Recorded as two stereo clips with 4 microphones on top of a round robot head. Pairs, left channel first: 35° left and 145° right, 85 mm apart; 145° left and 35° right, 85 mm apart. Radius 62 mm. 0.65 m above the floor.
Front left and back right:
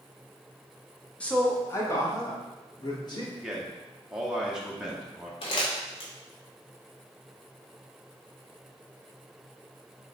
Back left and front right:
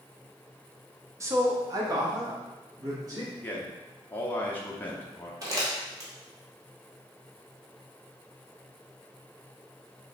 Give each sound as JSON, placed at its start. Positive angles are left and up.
{"t": 1.2, "sound": "a man speaking", "azimuth_deg": -30, "distance_m": 0.7}
{"t": 3.4, "sound": "a man speaking", "azimuth_deg": 150, "distance_m": 0.6}
{"t": 5.4, "sound": "crumpling", "azimuth_deg": 15, "distance_m": 1.0}